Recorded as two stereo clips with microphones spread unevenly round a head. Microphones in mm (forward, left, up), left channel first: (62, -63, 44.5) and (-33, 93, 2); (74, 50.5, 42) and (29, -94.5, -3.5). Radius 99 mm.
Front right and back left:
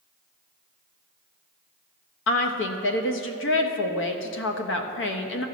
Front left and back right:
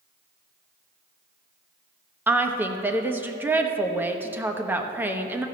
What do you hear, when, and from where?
2.3 s a woman speaking: 35° right, 1.1 m